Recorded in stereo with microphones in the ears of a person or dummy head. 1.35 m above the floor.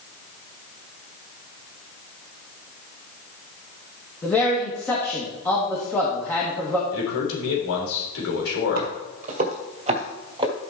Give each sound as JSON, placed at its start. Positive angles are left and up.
{"t": 4.2, "sound": "a man speaking", "side_deg": 10, "distance_m": 2.0}
{"t": 6.9, "sound": "a man speaking", "side_deg": 85, "distance_m": 4.0}
{"t": 8.8, "sound": "footsteps", "side_deg": -45, "distance_m": 2.0}